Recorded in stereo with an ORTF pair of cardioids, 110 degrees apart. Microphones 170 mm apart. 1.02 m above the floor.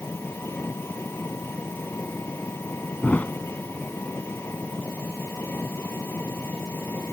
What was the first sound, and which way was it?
An engine running, 15° left.